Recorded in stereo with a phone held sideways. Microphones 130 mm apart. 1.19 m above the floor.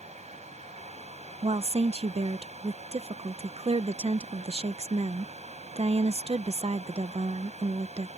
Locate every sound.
0.0 s a fan: 60° right (ahead or behind)
1.4 s a woman speaking: 50° right (ahead or behind)